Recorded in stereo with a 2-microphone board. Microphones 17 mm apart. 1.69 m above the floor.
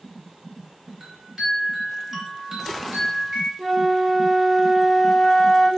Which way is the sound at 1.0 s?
25° right (ahead or behind).